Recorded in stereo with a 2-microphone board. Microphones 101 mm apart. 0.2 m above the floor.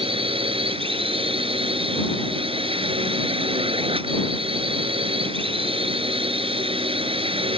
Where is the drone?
65° right (ahead or behind).